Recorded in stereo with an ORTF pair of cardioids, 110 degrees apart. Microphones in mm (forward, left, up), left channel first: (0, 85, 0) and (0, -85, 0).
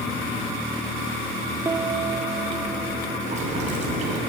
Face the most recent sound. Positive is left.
turn(degrees=-45)